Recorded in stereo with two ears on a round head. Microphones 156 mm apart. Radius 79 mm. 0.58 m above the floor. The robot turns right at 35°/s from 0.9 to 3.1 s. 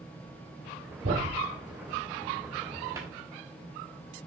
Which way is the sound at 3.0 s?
20° right (ahead or behind).